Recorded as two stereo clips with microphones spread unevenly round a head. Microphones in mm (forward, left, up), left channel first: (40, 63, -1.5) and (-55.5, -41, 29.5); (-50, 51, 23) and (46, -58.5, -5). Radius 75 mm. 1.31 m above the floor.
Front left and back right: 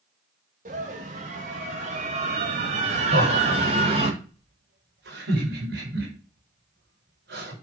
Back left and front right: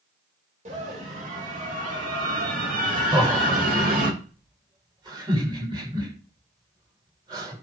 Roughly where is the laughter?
Right.